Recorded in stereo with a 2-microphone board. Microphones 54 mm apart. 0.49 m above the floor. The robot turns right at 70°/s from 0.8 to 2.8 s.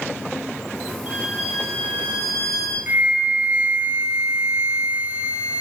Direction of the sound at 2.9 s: 30° right (ahead or behind).